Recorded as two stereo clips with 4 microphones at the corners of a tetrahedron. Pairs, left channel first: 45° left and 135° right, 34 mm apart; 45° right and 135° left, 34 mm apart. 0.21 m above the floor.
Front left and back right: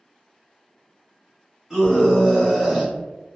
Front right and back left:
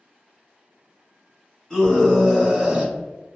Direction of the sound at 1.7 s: 105° right.